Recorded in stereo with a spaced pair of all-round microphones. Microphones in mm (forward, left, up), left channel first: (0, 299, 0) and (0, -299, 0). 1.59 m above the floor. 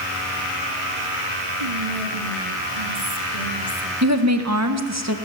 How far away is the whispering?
About 2.5 m.